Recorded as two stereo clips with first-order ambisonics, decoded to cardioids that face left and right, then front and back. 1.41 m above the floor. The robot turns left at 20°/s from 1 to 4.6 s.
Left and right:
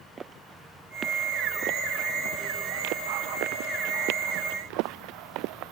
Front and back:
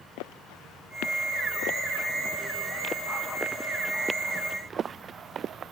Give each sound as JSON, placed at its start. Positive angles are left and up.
{"t": 0.2, "sound": "footsteps", "azimuth_deg": -20}